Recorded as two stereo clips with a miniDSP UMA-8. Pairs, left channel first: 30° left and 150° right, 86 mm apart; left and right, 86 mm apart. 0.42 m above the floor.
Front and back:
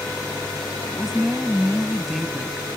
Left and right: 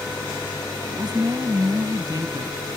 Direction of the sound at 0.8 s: 60° right.